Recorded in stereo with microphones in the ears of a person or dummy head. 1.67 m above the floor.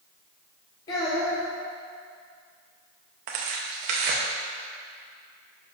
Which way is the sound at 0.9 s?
20° left (ahead or behind).